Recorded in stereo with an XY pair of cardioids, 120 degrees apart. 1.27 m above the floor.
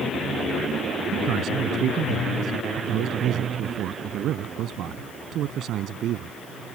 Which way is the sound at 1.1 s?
65° right.